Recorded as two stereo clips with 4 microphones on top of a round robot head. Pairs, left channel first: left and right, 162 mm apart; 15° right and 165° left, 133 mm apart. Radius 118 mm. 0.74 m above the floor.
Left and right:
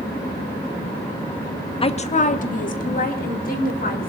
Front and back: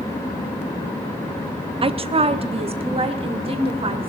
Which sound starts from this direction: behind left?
A woman speaking, at 1.8 s.